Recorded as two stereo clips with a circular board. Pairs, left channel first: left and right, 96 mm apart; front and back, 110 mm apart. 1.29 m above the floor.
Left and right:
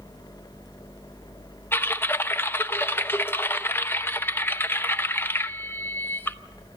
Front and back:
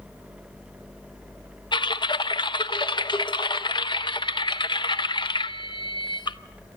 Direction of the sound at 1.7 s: 30° left.